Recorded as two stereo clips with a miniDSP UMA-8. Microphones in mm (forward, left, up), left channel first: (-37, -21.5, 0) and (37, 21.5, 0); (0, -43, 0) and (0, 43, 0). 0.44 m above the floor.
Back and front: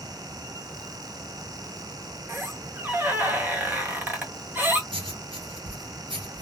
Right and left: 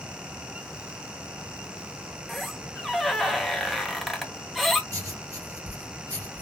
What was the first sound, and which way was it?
A squeak, straight ahead.